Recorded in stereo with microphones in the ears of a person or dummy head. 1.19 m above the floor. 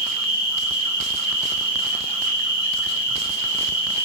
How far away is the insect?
About 1.1 m.